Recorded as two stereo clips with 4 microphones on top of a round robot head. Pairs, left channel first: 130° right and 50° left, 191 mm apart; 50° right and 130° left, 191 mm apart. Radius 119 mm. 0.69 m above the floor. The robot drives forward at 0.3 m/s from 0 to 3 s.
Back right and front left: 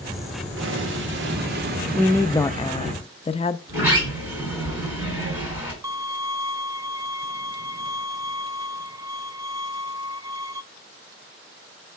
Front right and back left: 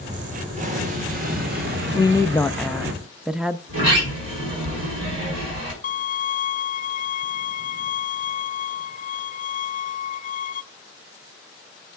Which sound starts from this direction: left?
An explosion, at 0.6 s.